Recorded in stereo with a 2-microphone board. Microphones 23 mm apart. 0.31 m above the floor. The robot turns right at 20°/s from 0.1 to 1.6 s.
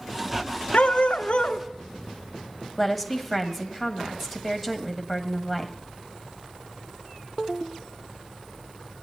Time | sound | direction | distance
0.7 | a dog barking | 70° left (ahead or behind) | 0.9 m
2.8 | a woman speaking | centre (ahead or behind) | 1.6 m